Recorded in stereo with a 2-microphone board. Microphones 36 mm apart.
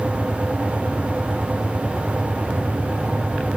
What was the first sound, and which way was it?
Only background noise.